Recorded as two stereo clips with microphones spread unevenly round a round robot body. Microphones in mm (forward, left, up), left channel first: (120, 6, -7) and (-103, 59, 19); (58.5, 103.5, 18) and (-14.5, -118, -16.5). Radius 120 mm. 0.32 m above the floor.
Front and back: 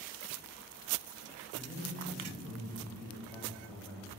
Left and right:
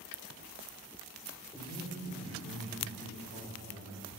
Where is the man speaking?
80° left, 1.4 m.